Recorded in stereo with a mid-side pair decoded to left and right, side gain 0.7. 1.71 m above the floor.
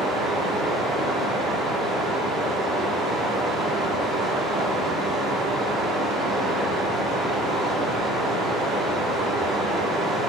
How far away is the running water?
About 1.7 m.